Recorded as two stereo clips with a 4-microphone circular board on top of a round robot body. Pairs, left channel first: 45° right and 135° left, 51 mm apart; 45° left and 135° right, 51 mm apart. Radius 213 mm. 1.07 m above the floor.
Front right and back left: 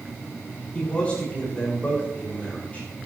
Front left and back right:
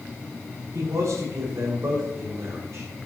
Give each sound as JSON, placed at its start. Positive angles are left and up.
{"t": 0.7, "sound": "a man speaking", "azimuth_deg": -115, "distance_m": 6.0}